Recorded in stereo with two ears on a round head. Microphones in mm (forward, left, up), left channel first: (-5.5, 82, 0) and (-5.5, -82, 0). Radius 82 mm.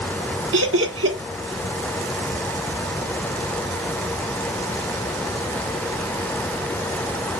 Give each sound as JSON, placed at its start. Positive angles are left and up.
{"t": 0.5, "sound": "laughter", "side_deg": -75, "distance_m": 1.3}